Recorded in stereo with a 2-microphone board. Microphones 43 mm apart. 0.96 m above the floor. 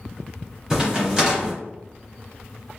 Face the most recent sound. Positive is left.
turn(degrees=-15)  # may be behind; listen again after turning